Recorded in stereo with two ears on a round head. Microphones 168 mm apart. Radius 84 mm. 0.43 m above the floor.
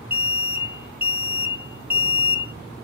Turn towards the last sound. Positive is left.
turn(degrees=-10)  # may be behind; listen again after turning